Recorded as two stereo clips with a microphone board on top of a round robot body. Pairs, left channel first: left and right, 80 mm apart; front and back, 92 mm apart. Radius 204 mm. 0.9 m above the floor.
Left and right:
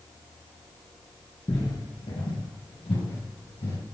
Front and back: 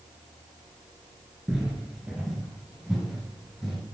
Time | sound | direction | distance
1.5 | footsteps | 105° left | 0.9 m